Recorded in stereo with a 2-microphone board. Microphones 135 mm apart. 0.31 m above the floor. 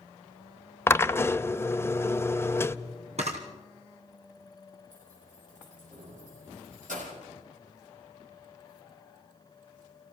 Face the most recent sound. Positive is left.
turn(degrees=-70)  # may be behind; listen again after turning